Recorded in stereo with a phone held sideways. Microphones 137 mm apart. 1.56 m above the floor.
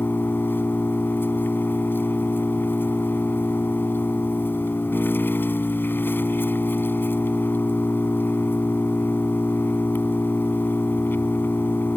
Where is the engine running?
15° left (ahead or behind).